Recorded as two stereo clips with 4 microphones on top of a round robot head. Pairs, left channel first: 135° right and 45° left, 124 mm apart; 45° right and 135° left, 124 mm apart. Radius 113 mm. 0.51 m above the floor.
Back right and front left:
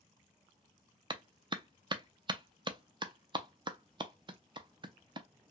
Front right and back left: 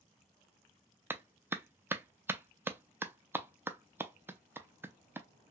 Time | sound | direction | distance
1.1 | a clap | 70° left | 0.6 m